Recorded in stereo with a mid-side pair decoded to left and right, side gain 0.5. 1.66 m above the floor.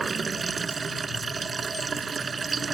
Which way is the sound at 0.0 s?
35° right.